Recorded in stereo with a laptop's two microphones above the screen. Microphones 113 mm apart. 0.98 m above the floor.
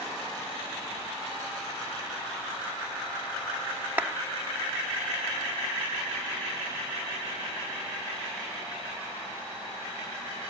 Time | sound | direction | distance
4.0 | a clap | 15° right (ahead or behind) | ?